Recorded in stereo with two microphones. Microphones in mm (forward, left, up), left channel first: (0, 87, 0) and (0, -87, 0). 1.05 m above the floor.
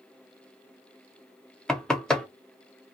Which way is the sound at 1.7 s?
5° left (ahead or behind).